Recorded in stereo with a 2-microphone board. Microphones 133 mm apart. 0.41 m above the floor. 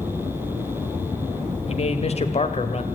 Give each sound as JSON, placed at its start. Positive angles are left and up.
{"t": 1.7, "sound": "a man speaking", "side_deg": 50, "distance_m": 1.7}